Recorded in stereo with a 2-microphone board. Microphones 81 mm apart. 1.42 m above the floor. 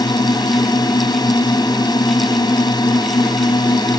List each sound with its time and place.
0.0 s a drone: 55° left (ahead or behind)